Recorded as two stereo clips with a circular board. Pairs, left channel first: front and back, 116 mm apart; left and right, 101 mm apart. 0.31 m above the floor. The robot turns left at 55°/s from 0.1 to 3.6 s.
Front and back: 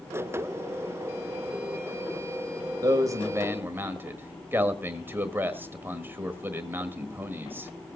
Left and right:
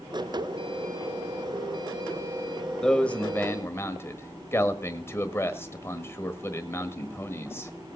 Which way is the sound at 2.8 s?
170° left.